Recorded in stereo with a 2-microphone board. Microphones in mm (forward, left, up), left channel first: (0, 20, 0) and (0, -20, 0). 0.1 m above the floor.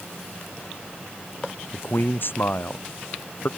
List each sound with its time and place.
1.7 s a man speaking: 55° left (ahead or behind)